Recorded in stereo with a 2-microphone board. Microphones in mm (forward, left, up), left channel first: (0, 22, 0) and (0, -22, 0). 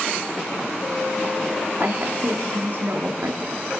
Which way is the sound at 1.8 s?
55° right (ahead or behind).